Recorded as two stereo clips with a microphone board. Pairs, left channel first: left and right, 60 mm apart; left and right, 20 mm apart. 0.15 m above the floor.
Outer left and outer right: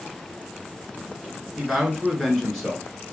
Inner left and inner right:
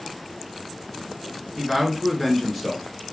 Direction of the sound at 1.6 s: Centre (ahead or behind).